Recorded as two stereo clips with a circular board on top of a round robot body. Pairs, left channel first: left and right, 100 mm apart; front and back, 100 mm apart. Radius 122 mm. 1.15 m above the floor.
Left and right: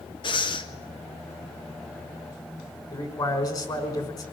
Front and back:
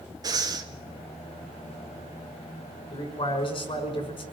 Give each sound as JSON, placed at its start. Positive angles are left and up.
{"t": 0.2, "sound": "breathing", "azimuth_deg": 130, "distance_m": 2.0}
{"t": 2.9, "sound": "a man speaking", "azimuth_deg": 40, "distance_m": 5.5}